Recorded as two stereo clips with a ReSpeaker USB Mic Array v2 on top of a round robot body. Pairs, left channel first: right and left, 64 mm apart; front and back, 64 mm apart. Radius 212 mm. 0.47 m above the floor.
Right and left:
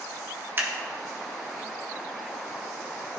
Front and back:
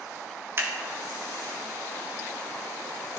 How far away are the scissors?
About 2 m.